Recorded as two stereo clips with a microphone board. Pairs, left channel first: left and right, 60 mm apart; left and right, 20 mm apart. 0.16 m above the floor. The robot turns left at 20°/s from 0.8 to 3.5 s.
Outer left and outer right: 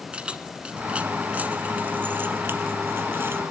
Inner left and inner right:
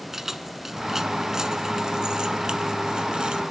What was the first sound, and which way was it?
Keys jangling, 20° right (ahead or behind).